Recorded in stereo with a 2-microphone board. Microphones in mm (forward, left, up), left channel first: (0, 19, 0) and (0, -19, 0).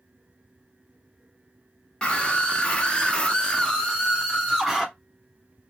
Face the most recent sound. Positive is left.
turn(degrees=0)  # may be behind; listen again after turning